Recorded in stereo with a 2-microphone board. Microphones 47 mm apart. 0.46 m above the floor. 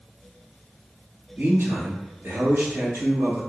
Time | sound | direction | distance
1.4 | a man speaking | 60° right (ahead or behind) | 1.9 m